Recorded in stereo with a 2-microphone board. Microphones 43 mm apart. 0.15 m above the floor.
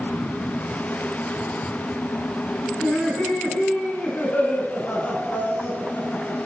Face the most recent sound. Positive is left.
turn(degrees=35)  # may be behind; listen again after turning